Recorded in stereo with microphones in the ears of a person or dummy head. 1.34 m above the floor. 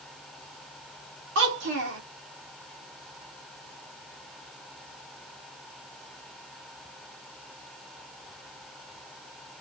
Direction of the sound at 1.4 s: 60° right (ahead or behind).